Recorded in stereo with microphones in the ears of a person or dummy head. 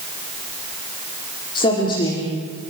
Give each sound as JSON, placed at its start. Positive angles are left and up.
{"t": 1.6, "sound": "a woman speaking", "side_deg": 25, "distance_m": 4.0}